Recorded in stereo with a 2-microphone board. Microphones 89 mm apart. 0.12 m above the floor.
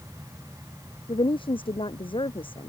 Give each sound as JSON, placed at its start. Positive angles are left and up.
{"t": 1.1, "sound": "a woman speaking", "side_deg": 75}